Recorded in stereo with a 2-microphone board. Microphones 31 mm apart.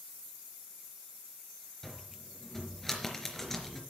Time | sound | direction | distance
1.8 | a cupboard door | 15° left (ahead or behind) | 3 m